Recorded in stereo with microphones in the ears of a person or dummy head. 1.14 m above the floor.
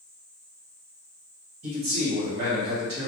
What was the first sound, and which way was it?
A man speaking, 40° right (ahead or behind).